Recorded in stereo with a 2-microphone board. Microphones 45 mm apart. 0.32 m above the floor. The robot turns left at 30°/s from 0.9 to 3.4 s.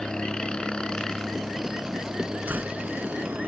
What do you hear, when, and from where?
0.0 s a helicopter: 20° left; by 3.5 s 55° right
2.5 s a door slam: 50° right (ahead or behind); by 2.8 s 60° right (ahead or behind)